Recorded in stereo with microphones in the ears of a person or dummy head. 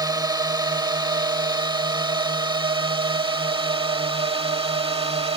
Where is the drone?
20° right (ahead or behind); by 5.4 s 30° right (ahead or behind).